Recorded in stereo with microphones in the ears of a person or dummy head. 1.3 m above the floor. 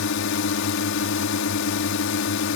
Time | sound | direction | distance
0.0 | a drone | 65° left (ahead or behind) | ?